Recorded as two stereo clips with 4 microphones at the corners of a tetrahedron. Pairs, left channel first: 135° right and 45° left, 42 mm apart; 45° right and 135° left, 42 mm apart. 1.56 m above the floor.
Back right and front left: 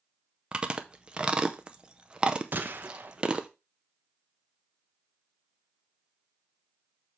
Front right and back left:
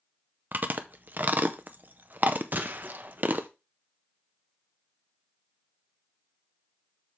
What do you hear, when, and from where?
0.5 s chewing: 105° left, 0.7 m
2.5 s a gunshot: 90° left, 0.8 m